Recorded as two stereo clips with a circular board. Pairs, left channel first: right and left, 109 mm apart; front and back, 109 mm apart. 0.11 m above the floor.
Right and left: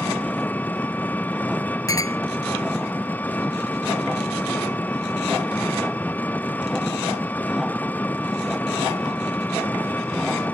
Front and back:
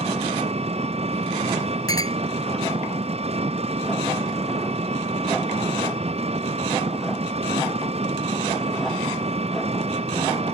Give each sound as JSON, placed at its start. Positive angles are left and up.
{"t": 0.0, "sound": "an engine running", "azimuth_deg": -165}
{"t": 1.9, "sound": "a clink", "azimuth_deg": -45}